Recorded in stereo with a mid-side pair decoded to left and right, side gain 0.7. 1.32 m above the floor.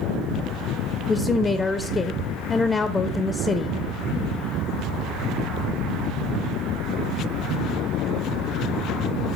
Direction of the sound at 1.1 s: 20° left.